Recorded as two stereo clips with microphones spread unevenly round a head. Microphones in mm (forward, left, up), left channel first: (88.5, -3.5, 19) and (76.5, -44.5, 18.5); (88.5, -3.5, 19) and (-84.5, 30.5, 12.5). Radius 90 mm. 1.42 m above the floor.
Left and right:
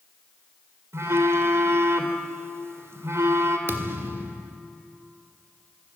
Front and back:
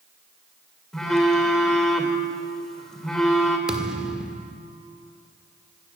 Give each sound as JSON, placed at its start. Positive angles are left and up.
{"t": 0.9, "sound": "a phone buzzing", "azimuth_deg": -100, "distance_m": 3.0}
{"t": 3.7, "sound": "a thud", "azimuth_deg": -105, "distance_m": 1.5}